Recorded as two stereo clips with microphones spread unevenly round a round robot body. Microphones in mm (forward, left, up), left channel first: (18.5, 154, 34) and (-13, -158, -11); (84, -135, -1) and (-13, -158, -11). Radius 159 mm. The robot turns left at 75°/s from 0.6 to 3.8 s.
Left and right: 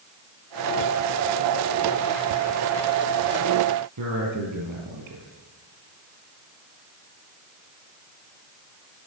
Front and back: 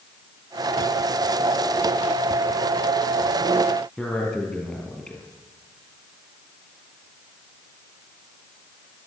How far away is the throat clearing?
No throat clearing in this recording.